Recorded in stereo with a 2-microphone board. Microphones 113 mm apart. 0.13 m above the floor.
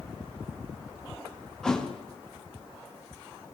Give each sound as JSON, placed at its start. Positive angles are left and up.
{"t": 1.6, "sound": "a thud", "side_deg": 5, "distance_m": 2.5}